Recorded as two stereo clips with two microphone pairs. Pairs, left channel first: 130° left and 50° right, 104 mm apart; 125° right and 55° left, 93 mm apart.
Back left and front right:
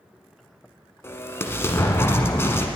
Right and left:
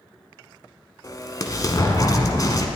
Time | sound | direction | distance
1.0 | an explosion | 165° right | 1.1 m